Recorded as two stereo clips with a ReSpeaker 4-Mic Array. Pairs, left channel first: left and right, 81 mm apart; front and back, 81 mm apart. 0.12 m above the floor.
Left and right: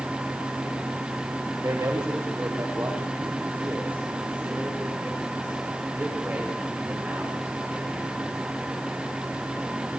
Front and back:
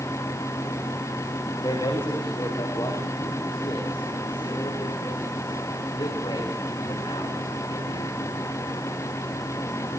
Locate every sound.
1.6 s a man speaking: 30° right, 8.5 m; by 8.1 s 10° right, 14 m